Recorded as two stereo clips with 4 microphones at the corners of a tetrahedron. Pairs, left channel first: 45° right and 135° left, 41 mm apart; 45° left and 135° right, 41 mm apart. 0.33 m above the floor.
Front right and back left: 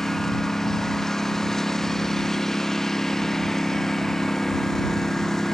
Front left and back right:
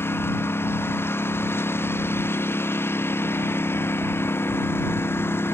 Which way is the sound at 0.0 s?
35° left.